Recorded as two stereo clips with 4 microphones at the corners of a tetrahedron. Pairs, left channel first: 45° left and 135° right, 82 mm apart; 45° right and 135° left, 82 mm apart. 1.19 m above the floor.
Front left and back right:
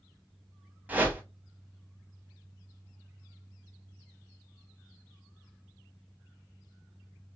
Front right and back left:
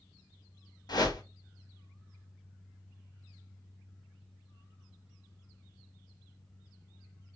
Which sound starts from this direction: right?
A whoosh, at 0.9 s.